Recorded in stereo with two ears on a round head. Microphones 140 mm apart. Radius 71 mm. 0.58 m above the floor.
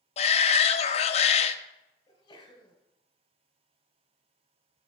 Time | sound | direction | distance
0.2 | a shout | 40° left (ahead or behind) | 0.7 m
2.1 | a sneeze | 30° left (ahead or behind) | 3.5 m